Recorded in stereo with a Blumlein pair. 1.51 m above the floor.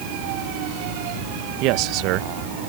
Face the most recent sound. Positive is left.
turn(degrees=-40)